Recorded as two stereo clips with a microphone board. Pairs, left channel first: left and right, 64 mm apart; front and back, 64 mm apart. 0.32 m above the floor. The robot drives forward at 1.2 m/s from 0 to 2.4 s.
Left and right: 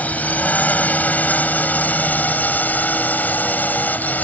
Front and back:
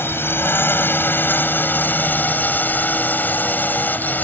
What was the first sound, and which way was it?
A drone, 35° left.